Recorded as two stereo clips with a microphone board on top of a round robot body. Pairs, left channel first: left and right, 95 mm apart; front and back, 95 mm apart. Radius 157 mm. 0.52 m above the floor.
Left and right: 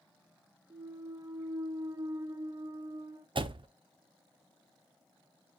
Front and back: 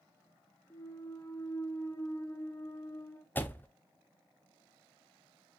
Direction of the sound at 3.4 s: 70° right.